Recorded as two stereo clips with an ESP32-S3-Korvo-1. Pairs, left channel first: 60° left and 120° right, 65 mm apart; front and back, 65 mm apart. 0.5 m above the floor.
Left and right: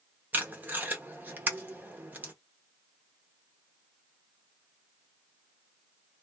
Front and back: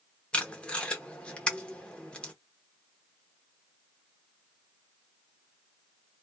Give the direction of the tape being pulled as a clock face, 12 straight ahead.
2 o'clock.